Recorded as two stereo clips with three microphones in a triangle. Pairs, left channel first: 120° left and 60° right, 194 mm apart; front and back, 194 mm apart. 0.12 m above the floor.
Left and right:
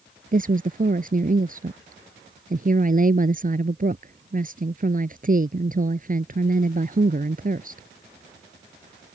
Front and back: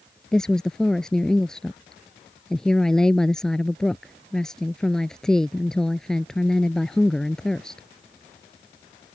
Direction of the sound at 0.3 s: 85° right.